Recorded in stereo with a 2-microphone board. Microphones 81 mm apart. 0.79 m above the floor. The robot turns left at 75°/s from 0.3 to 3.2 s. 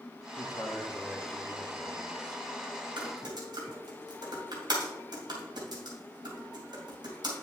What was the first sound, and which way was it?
A man speaking, 80° left.